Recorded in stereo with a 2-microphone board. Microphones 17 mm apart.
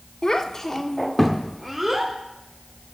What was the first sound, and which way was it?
A child speaking, 30° left (ahead or behind).